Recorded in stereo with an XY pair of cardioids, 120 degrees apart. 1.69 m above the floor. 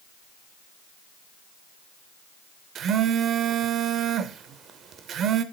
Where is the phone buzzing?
55° right, 0.7 m.